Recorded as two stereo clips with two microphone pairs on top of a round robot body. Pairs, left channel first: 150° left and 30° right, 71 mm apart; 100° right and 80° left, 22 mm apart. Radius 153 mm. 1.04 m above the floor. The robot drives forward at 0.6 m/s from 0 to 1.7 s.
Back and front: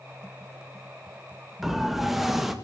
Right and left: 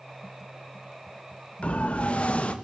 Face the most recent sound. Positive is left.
turn(degrees=-115)